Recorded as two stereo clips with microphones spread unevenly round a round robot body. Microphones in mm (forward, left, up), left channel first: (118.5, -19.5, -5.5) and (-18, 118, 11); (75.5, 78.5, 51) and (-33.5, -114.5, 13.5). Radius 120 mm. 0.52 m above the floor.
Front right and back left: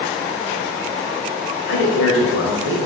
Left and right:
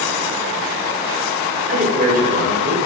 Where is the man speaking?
70° right, 2 m.